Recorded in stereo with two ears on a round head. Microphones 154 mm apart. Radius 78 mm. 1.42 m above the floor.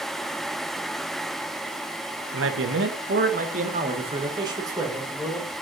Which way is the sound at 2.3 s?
80° right.